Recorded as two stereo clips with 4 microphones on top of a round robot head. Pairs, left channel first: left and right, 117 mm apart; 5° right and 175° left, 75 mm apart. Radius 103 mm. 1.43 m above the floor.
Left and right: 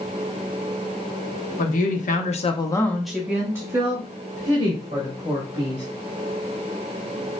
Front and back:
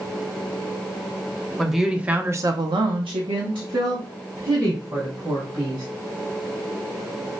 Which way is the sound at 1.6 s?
85° left.